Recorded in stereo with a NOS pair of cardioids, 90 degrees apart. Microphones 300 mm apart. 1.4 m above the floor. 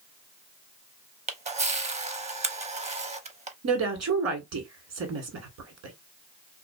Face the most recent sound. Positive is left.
turn(degrees=-60)